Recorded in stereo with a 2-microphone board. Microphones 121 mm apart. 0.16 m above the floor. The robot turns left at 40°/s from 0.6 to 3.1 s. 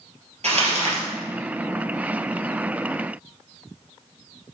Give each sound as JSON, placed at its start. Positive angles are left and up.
{"t": 0.4, "sound": "crumpling", "side_deg": -65, "distance_m": 2.0}